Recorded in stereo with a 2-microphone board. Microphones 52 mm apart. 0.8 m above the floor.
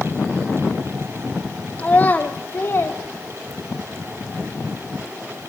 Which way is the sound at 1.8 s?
20° left (ahead or behind).